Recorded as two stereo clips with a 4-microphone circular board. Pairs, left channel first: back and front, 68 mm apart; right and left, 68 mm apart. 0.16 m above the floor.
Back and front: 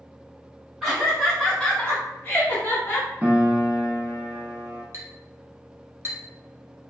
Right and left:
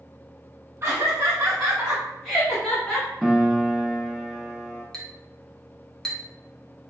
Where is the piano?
Straight ahead, 0.6 m.